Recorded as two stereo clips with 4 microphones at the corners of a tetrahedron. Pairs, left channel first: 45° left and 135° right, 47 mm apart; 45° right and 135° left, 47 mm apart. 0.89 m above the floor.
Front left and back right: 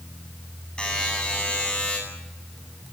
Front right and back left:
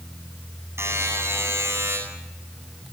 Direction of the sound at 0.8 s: 115° left.